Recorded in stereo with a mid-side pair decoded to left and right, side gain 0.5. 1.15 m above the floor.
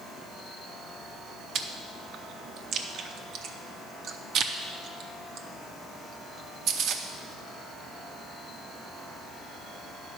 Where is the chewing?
65° right, 0.7 m.